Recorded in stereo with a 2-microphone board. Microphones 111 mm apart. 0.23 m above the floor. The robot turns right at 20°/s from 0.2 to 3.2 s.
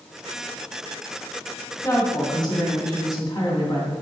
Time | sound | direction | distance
1.8 | a woman speaking | 35° left (ahead or behind) | 2 m